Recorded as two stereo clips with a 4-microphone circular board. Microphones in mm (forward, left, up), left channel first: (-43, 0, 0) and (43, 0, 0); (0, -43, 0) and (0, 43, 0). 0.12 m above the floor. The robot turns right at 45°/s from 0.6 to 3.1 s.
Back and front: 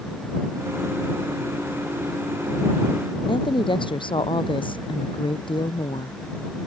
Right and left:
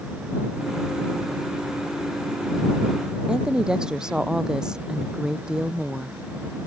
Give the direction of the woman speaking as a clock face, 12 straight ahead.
6 o'clock.